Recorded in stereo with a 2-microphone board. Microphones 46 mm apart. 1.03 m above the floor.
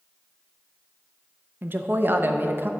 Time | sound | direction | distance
1.6 | a woman speaking | 45° right (ahead or behind) | 0.6 m